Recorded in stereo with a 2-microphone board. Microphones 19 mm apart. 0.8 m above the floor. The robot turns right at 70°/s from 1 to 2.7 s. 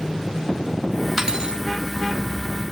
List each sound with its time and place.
1.2 s cutlery clinking: 155° right, 0.8 m; by 1.6 s 125° right, 0.8 m